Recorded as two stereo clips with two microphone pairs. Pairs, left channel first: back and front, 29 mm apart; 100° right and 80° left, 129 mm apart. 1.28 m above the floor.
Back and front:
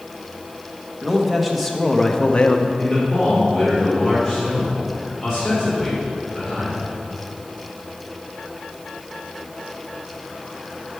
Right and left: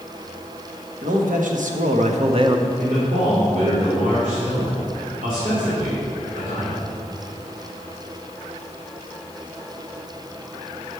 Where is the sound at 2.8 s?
80° left, 3.5 m.